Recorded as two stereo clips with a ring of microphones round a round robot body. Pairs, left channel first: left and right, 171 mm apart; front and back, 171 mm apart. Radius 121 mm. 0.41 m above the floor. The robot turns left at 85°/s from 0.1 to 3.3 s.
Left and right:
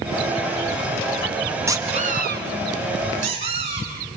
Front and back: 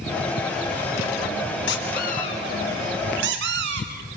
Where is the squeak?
15° right, 2.5 m; by 4.2 s 155° right, 2.5 m.